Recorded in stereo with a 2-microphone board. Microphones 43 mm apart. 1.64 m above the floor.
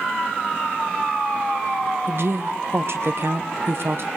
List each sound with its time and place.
2.1 s a woman speaking: 60° right (ahead or behind), 1.2 m